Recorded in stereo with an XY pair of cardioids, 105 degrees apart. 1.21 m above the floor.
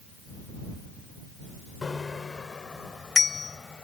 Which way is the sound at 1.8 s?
30° left.